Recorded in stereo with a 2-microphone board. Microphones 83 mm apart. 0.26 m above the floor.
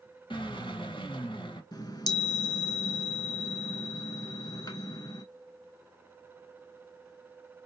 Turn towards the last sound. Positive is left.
turn(degrees=55)  # may be behind; listen again after turning